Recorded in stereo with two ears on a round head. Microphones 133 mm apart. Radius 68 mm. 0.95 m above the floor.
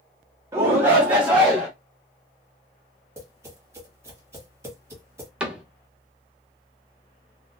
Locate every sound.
0.5 s a shout: 20° right (ahead or behind), 0.6 m; by 1.7 s 5° right (ahead or behind), 1.2 m
3.2 s tapping: 20° right (ahead or behind), 1.1 m
5.4 s a cupboard door: 5° right (ahead or behind), 0.6 m